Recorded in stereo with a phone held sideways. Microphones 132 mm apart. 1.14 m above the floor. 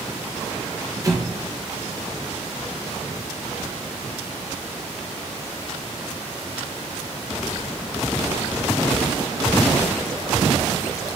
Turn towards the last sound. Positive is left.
turn(degrees=-25)  # may be behind; listen again after turning